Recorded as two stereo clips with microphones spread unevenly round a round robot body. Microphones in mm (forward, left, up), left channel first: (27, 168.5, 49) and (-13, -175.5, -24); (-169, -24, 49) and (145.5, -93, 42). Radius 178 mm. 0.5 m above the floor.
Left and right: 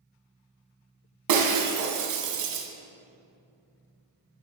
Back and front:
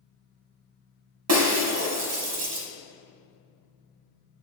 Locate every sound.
1.3 s breaking glass: 55° right, 1.5 m